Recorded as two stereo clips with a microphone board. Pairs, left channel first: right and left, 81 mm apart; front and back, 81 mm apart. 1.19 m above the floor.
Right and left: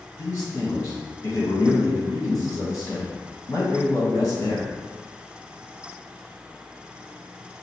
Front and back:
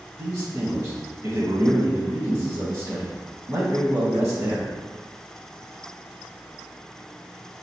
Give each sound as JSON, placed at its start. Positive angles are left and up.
{"t": 0.2, "sound": "a man speaking", "azimuth_deg": -140, "distance_m": 1.5}